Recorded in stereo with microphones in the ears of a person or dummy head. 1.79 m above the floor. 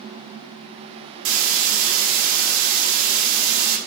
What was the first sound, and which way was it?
A hiss, 65° right (ahead or behind).